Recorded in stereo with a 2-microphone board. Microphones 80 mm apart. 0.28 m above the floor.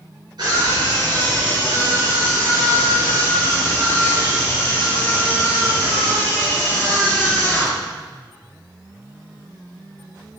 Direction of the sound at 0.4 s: 55° right (ahead or behind).